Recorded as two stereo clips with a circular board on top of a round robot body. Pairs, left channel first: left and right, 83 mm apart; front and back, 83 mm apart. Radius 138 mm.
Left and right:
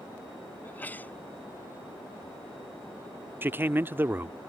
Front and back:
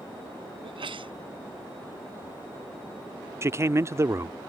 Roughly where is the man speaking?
Behind right.